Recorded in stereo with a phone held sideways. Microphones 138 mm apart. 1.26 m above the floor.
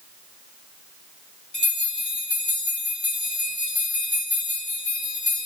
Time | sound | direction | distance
1.5 | a bell | 40° left (ahead or behind) | 2 m